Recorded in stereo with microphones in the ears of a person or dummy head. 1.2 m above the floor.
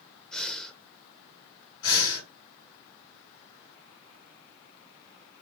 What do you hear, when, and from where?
0.3 s breathing: centre (ahead or behind), 0.7 m
1.8 s breathing: 75° left (ahead or behind), 3 m